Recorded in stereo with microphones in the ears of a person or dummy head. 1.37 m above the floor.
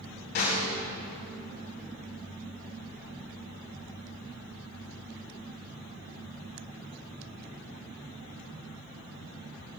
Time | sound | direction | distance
0.3 | a snare drum | 55° left (ahead or behind) | 4.5 m